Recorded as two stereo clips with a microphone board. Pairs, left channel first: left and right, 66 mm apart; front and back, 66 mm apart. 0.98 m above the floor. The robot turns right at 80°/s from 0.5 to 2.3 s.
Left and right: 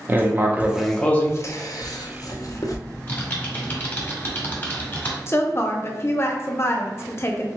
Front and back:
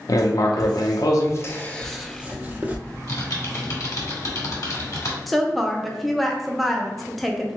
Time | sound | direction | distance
0.1 | writing | 25° right | 0.6 m
2.9 | typing on a keyboard | 30° left | 1.4 m
5.3 | a woman speaking | 85° left | 0.6 m